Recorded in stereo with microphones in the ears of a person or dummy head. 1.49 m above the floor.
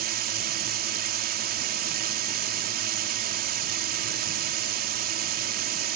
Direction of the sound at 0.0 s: 50° right (ahead or behind).